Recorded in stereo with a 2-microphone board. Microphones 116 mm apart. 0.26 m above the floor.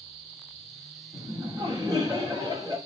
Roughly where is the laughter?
Right.